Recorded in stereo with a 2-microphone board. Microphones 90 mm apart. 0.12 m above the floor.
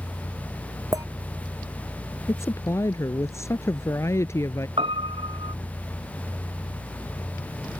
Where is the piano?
80° right.